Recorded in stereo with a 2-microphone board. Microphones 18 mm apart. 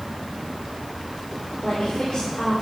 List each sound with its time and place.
1.6 s a woman speaking: 50° left (ahead or behind), 3 m